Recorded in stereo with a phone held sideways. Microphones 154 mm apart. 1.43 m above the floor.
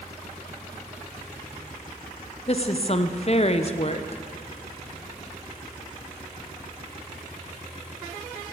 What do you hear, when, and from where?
2.5 s a woman speaking: 45° left (ahead or behind), 0.6 m